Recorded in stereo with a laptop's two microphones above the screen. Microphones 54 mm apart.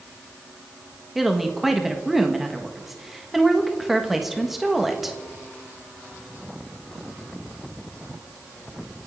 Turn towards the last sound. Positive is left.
turn(degrees=-5)  # may be behind; listen again after turning